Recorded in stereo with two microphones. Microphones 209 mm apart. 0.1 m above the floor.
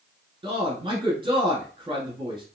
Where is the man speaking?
25° right (ahead or behind), 1.2 m.